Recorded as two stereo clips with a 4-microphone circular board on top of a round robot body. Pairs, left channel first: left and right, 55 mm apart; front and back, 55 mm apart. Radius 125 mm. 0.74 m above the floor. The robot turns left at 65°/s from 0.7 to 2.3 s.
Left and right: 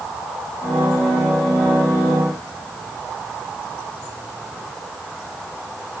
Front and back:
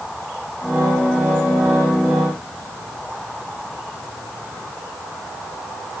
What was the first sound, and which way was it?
Only background noise.